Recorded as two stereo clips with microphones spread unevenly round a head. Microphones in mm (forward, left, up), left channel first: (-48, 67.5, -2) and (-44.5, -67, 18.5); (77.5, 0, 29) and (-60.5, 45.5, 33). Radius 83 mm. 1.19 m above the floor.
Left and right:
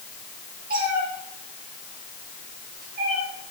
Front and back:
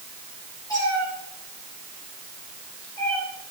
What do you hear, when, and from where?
0.7 s a cat meowing: 85° right, 8.5 m; by 3.2 s 95° right, 7 m